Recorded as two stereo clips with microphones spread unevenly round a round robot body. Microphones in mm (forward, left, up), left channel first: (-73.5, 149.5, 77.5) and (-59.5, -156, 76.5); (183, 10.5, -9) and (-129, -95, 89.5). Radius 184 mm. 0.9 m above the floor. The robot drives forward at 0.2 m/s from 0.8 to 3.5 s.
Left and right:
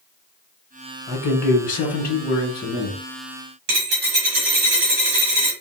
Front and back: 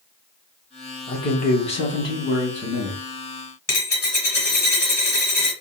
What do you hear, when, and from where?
1.1 s a man speaking: 40° left, 1.0 m; by 3.0 s 75° left, 0.9 m
3.7 s a dropped coin: 75° right, 1.0 m